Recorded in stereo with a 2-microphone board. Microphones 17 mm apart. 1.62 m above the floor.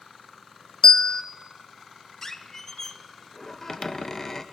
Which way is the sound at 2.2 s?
30° left (ahead or behind).